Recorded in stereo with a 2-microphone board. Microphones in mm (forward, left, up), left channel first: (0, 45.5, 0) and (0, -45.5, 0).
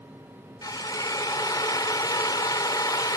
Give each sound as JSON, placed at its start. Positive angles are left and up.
{"t": 0.6, "sound": "a drill", "side_deg": 45}